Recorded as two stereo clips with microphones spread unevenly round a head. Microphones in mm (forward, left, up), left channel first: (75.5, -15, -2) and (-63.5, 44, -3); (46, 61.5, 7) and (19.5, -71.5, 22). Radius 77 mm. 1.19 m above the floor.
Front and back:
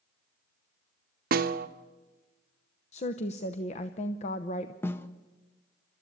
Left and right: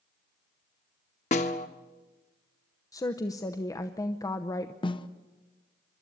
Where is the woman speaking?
20° left, 0.8 m.